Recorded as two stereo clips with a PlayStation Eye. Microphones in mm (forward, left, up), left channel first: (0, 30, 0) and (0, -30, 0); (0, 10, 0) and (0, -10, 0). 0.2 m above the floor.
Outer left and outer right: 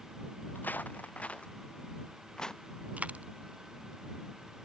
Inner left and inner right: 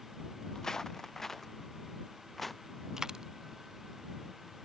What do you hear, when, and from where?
0.6 s footsteps: 35° left (ahead or behind); by 2.6 s 10° left (ahead or behind)
3.0 s a dropped coin: 25° right (ahead or behind)